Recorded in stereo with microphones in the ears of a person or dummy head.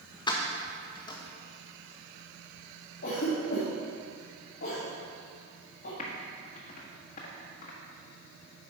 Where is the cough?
50° left (ahead or behind), 1.9 m.